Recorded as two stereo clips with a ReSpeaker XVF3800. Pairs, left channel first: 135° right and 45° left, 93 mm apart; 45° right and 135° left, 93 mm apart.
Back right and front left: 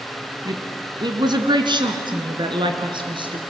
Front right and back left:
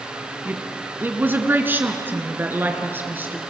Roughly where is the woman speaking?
Left.